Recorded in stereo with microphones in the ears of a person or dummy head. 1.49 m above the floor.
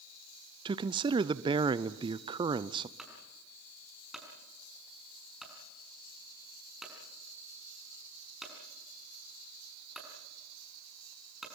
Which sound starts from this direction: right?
A man speaking, at 0.7 s.